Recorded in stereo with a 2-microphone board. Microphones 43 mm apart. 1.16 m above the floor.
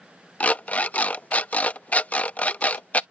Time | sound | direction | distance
0.4 | an alarm clock | 40° left (ahead or behind) | ?